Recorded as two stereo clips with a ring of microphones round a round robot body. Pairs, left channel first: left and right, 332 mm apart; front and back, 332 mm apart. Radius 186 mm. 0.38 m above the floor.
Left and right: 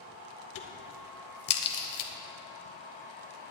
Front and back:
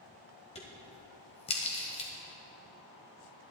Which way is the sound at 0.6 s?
70° left.